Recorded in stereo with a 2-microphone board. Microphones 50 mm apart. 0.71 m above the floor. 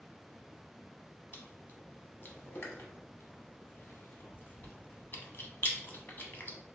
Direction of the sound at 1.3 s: 45° left (ahead or behind).